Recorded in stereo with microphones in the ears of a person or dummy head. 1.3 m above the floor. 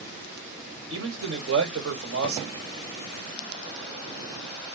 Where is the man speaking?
80° right, 1.9 m.